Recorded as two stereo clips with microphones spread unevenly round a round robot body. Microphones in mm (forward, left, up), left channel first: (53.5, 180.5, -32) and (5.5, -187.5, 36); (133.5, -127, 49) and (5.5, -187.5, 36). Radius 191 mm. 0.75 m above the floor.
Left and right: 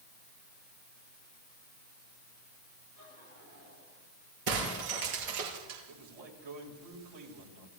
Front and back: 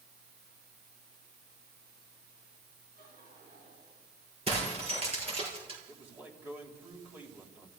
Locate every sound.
3.0 s laughter: 150° right, 9.5 m; by 4.1 s 155° right, 9.5 m
4.5 s breaking glass: 110° right, 5 m
5.9 s a man speaking: 80° right, 4 m